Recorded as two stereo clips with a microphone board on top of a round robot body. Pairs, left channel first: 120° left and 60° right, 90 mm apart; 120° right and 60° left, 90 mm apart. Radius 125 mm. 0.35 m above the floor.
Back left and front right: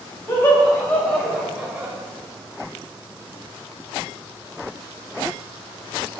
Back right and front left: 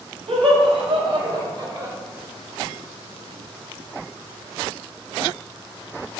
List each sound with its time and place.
0.3 s laughter: 55° left, 2.5 m; by 1.9 s 5° left, 1.7 m